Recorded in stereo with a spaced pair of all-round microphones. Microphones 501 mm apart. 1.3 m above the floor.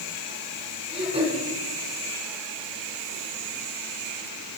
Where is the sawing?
I don't hear sawing.